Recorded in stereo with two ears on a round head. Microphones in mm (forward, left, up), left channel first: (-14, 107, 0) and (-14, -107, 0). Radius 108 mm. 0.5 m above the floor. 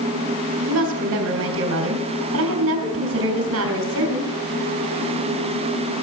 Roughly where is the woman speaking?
Right.